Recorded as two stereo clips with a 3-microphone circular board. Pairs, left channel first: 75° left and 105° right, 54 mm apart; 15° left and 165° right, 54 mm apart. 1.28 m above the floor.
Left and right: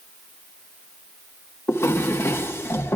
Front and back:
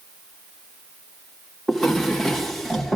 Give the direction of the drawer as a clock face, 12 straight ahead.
9 o'clock.